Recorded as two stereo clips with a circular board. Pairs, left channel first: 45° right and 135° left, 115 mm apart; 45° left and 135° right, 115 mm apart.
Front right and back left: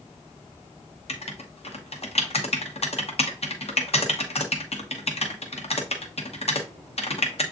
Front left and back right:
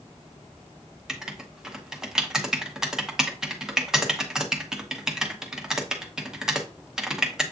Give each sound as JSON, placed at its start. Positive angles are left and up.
{"t": 1.1, "sound": "writing", "azimuth_deg": -50, "distance_m": 0.7}